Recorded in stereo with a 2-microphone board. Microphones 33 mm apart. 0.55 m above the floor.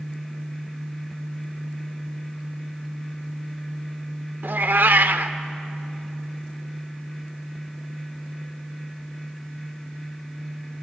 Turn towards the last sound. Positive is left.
turn(degrees=-65)  # may be behind; listen again after turning